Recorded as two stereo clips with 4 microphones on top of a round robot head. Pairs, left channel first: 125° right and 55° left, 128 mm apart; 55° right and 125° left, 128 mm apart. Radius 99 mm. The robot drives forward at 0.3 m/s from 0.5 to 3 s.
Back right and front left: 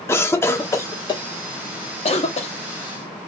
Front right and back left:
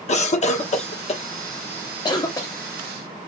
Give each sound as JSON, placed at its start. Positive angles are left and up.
{"t": 0.1, "sound": "a cough", "azimuth_deg": -60, "distance_m": 0.8}